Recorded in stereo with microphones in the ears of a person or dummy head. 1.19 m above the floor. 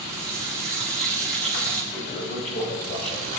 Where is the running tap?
Centre (ahead or behind), 4.5 m.